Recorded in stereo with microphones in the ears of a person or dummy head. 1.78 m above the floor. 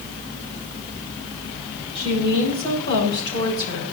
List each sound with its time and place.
1.9 s a woman speaking: 35° left (ahead or behind), 8 m; by 3.9 s 30° left (ahead or behind), 6.5 m